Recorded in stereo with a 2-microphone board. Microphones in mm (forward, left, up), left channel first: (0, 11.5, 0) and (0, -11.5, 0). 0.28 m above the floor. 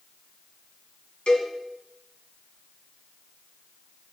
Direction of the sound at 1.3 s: 55° left (ahead or behind).